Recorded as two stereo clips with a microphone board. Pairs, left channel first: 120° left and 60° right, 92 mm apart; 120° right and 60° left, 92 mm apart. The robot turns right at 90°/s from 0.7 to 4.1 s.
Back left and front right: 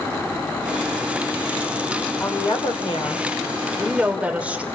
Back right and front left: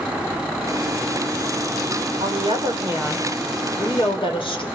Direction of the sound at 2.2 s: 50° left.